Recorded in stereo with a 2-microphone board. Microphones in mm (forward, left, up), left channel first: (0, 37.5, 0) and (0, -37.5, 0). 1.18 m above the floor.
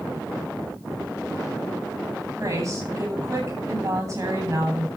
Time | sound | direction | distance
2.4 | a woman speaking | 40° right (ahead or behind) | 9 m